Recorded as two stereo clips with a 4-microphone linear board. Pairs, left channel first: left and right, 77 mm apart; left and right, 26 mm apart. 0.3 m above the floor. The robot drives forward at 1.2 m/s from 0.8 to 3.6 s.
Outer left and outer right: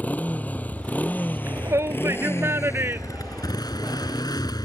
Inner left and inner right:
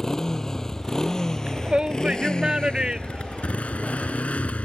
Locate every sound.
0.0 s a motorcycle: 20° left (ahead or behind); by 4.7 s 55° left (ahead or behind)
1.5 s a shout: 35° right (ahead or behind); by 4.2 s 25° right (ahead or behind)